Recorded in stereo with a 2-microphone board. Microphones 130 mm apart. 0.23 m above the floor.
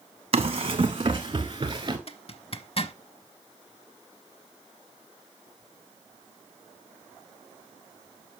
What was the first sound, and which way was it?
Running footsteps, 50° right (ahead or behind).